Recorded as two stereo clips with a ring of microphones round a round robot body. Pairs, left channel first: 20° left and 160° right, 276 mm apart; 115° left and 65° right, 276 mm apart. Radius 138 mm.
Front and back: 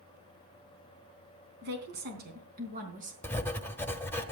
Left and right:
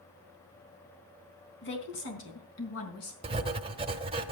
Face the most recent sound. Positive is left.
turn(degrees=-45)